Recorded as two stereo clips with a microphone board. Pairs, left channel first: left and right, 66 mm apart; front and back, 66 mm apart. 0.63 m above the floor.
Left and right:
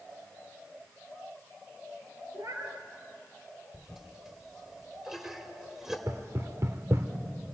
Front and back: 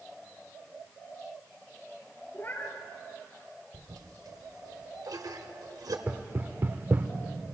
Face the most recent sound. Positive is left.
turn(degrees=-130)